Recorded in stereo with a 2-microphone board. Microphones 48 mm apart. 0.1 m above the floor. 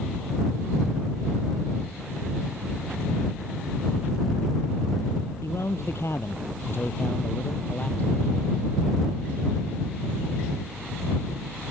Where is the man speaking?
65° left (ahead or behind); by 8.7 s 25° left (ahead or behind).